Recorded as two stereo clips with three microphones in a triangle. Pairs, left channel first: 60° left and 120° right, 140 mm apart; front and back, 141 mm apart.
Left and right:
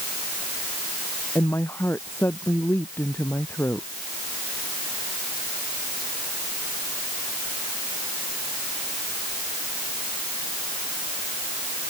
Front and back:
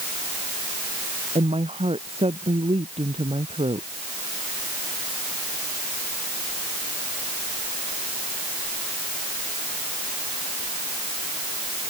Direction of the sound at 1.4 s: 135° left.